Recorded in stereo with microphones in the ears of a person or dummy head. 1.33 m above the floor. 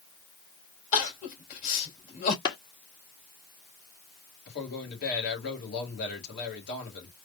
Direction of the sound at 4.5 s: 60° left (ahead or behind).